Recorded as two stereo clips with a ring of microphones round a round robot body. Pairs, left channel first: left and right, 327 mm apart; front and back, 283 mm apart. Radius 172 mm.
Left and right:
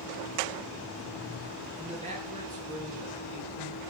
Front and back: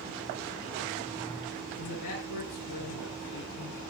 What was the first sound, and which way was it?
A man speaking, 15° right.